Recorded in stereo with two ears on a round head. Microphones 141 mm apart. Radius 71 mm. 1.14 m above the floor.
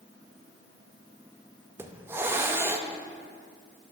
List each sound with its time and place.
1.8 s a hiss: 15° right (ahead or behind), 0.5 m